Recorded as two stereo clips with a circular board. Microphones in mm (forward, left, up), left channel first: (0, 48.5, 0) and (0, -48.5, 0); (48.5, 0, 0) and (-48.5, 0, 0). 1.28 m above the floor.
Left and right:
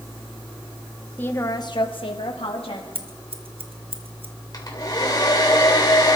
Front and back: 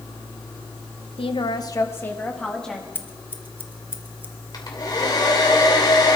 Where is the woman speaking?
15° left, 1.2 m; by 2.9 s 85° left, 2.5 m.